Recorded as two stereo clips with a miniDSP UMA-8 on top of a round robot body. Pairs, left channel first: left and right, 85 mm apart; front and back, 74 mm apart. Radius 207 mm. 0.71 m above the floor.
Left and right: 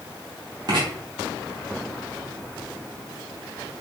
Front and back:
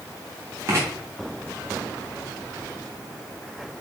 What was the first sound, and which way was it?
Writing, 130° right.